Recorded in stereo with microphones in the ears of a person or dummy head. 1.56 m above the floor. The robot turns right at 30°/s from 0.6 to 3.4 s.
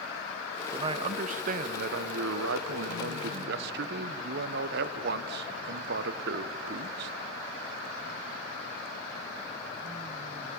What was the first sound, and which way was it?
A man speaking, 150° right.